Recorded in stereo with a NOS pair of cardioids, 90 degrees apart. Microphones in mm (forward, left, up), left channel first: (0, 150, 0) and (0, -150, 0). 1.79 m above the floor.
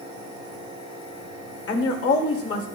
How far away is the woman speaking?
About 2.0 m.